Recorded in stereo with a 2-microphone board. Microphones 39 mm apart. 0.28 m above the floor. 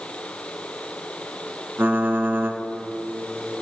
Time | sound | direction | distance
1.8 | typing on a keyboard | 60° right (ahead or behind) | 1.1 m